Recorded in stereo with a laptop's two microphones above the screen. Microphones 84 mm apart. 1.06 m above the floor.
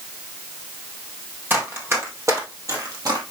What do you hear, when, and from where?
1.5 s running footsteps: 25° right (ahead or behind), 2 m; by 3.2 s 50° right (ahead or behind), 2 m